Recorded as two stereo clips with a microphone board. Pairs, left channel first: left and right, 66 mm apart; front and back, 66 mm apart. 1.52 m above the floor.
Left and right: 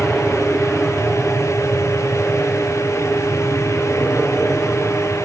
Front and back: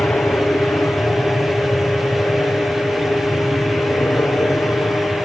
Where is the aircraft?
5° right; by 5.3 s straight ahead.